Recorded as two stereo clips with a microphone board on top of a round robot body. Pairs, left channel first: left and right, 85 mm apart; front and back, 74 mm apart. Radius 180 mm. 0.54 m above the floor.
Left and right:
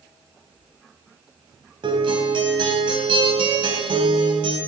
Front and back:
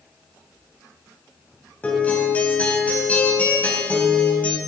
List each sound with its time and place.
1.8 s a guitar: 70° right, 3 m